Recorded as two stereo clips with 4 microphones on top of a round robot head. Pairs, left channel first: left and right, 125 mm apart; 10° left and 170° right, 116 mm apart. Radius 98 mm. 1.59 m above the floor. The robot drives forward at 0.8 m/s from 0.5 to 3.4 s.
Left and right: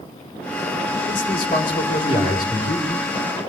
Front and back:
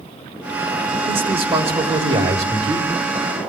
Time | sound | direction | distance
1.1 | a man speaking | 145° left | 4.5 m